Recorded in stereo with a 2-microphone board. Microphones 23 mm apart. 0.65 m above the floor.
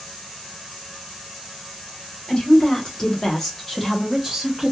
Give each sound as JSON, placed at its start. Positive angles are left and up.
{"t": 2.3, "sound": "a woman speaking", "side_deg": 40, "distance_m": 1.2}